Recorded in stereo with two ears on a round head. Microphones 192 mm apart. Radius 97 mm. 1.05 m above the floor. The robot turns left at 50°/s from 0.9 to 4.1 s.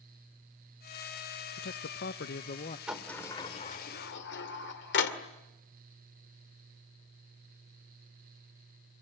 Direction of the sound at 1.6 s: 100° left.